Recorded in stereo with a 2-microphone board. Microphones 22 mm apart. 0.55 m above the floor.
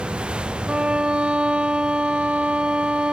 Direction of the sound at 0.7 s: 55° right (ahead or behind).